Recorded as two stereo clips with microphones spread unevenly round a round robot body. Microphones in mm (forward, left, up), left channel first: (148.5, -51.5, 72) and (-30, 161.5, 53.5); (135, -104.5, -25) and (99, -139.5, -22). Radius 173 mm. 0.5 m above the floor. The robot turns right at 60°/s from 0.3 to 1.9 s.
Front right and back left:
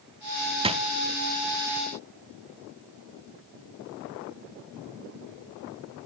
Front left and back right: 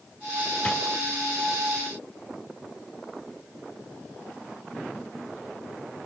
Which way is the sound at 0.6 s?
80° left.